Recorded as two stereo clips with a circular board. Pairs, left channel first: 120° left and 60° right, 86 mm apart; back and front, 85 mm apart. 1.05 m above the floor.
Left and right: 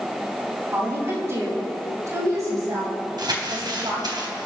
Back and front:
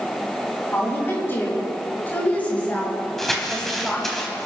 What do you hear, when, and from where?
0.7 s a woman speaking: 120° right, 6 m; by 4.2 s 95° right, 5 m
3.2 s crumpling: 90° right, 2.5 m